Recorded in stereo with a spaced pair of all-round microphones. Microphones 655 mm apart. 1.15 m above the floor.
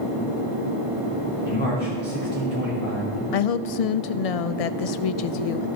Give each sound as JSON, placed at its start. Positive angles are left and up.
{"t": 1.4, "sound": "a man speaking", "side_deg": 15, "distance_m": 3.0}
{"t": 3.3, "sound": "a woman speaking", "side_deg": 65, "distance_m": 0.5}